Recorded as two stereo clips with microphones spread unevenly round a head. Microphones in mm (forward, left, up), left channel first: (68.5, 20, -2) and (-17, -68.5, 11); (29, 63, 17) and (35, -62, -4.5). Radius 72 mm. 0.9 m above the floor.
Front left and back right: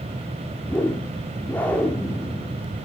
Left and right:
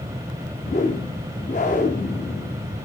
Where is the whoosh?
125° left, 0.9 m.